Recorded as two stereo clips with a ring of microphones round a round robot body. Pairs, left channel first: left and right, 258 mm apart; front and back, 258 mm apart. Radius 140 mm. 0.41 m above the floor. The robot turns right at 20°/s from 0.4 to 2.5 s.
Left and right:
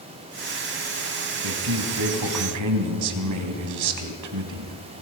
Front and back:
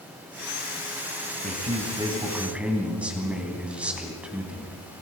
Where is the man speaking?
115° right, 3 m; by 4.8 s 95° right, 3 m.